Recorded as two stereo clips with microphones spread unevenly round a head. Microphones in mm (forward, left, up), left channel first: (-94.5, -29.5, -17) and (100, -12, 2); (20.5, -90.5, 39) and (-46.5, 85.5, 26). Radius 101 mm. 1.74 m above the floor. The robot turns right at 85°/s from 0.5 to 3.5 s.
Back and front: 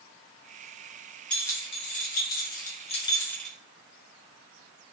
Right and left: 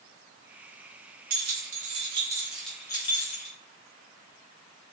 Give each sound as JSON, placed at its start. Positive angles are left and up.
{"t": 1.3, "sound": "keys jangling", "azimuth_deg": 95, "distance_m": 1.1}